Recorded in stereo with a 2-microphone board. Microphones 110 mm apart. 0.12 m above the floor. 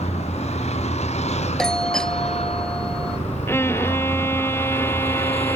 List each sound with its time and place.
0.0 s a vehicle: 80° left; by 5.6 s 60° left (ahead or behind)
1.6 s a doorbell: 5° left (ahead or behind)
3.5 s a violin: 20° left (ahead or behind)